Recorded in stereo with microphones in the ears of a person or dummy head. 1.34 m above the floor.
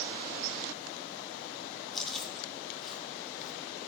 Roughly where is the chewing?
Centre.